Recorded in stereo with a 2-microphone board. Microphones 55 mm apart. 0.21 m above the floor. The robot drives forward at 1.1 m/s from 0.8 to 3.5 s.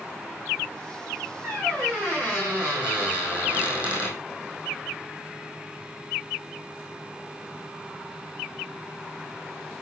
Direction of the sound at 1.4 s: 15° right (ahead or behind).